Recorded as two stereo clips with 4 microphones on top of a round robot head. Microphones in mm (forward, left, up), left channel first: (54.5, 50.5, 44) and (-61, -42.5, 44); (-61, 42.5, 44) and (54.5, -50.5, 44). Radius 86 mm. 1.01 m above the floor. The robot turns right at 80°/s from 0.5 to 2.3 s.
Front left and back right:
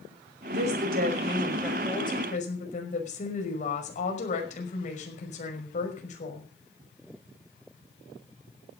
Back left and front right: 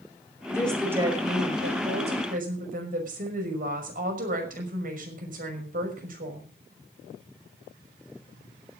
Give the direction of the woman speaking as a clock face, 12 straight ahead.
5 o'clock.